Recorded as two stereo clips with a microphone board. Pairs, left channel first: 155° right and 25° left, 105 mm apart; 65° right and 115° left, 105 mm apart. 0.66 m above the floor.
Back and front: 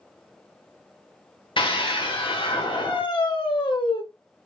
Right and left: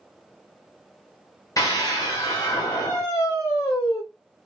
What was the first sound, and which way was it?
A scream, 125° right.